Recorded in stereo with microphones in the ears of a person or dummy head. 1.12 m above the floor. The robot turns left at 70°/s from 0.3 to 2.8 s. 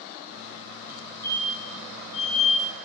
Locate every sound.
0.9 s a fire alarm: 10° right (ahead or behind), 3.5 m; by 2.7 s 55° left (ahead or behind), 3.5 m